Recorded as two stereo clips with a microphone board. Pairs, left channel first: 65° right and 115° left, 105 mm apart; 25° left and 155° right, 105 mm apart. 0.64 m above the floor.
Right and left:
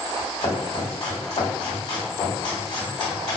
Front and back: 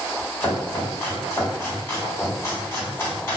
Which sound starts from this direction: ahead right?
Chopping, at 0.4 s.